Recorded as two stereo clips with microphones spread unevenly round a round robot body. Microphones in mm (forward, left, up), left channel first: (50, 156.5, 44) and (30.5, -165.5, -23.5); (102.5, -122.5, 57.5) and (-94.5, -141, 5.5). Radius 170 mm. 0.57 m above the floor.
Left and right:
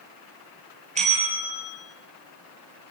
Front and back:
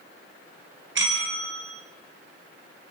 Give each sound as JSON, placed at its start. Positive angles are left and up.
{"t": 0.9, "sound": "a bell", "azimuth_deg": -165, "distance_m": 5.5}